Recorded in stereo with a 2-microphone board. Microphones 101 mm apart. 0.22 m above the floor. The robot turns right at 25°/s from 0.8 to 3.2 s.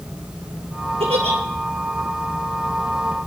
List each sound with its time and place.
1.0 s a giggle: 80° right, 3 m; by 1.4 s 90° right, 3 m